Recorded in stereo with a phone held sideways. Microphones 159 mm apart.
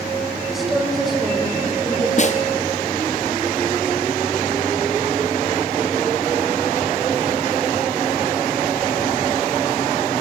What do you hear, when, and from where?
0.5 s a woman speaking: centre (ahead or behind), 7 m
2.2 s a snare drum: 50° left (ahead or behind), 1.3 m